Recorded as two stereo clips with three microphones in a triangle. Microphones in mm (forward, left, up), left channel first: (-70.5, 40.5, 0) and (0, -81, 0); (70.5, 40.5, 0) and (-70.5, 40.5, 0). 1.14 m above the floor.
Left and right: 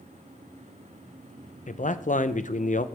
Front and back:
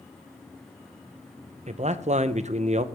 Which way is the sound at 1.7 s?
145° left.